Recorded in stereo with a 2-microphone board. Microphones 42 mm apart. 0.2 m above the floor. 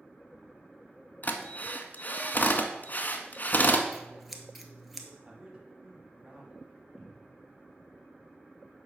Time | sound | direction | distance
1.2 | a drill | 45° left (ahead or behind) | 0.8 m
3.9 | scissors | 5° right (ahead or behind) | 0.9 m
5.2 | a man speaking | 25° right (ahead or behind) | 1.2 m
7.0 | a cupboard door | 15° right (ahead or behind) | 2.5 m